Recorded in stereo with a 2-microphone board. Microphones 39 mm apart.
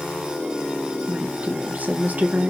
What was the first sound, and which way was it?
A woman speaking, 45° right (ahead or behind).